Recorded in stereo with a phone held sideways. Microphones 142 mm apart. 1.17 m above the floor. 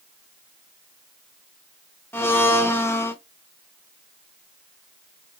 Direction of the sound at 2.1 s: 15° left (ahead or behind).